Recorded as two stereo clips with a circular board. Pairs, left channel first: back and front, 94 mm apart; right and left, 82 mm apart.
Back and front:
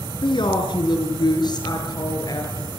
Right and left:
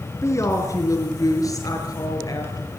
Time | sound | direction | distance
0.2 | a woman speaking | 145° right | 5.5 m